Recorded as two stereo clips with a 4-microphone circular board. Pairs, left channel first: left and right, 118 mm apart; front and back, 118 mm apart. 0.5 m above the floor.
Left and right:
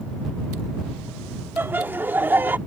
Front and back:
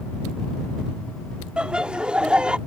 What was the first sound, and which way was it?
Laughter, 115° right.